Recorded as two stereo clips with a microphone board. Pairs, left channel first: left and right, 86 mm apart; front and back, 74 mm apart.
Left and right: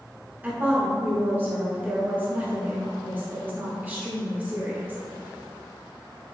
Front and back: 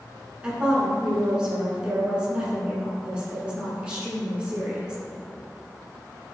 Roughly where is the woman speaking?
Behind right.